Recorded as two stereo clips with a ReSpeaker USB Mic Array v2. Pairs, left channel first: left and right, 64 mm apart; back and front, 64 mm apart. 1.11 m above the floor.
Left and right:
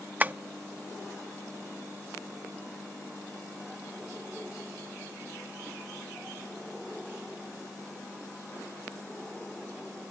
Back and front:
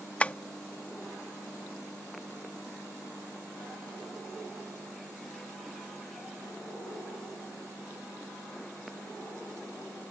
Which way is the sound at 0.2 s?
130° right.